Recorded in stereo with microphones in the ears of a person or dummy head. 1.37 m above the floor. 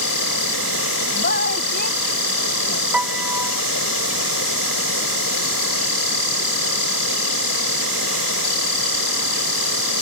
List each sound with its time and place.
0.0 s an insect: 85° left
1.1 s a woman speaking: 55° left (ahead or behind)
2.9 s a piano: 5° right (ahead or behind)